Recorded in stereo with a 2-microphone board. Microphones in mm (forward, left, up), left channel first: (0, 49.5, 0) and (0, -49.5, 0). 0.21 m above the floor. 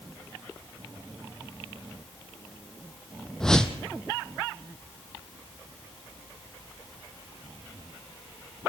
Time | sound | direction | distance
3.4 | a whoosh | 5° left (ahead or behind) | 1.5 m